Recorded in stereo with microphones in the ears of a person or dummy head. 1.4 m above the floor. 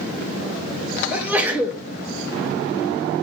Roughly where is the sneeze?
Centre.